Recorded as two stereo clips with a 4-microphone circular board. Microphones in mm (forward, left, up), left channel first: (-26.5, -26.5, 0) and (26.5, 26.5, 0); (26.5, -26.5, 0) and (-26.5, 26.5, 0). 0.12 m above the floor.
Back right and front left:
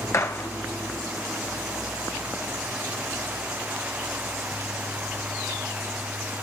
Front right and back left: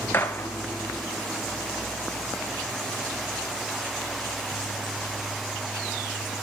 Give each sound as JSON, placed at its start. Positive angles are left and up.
{"t": 0.1, "sound": "a gunshot", "azimuth_deg": -100, "distance_m": 1.6}